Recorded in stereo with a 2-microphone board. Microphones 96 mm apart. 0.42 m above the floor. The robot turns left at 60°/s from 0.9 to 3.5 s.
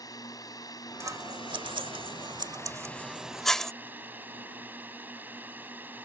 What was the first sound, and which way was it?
A drone, 135° left.